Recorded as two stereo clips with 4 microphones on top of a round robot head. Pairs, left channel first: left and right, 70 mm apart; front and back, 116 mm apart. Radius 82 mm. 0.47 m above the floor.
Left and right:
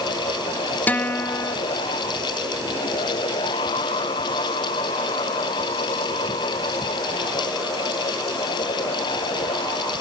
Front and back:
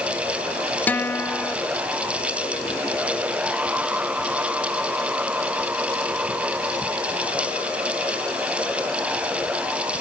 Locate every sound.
0.9 s a guitar: 60° left, 1.1 m